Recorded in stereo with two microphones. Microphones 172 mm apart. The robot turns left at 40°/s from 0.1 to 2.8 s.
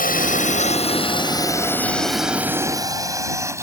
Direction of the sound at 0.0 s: 55° left (ahead or behind).